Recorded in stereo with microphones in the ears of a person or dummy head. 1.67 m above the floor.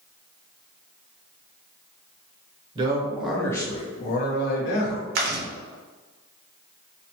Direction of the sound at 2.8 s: 25° right (ahead or behind).